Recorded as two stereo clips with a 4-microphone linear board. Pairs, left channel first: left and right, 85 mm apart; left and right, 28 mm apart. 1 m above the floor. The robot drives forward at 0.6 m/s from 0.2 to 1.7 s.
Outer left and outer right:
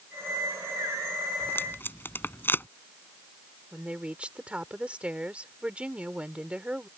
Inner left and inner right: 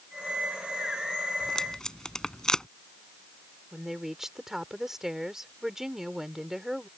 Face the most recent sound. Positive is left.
turn(degrees=-15)  # may be behind; listen again after turning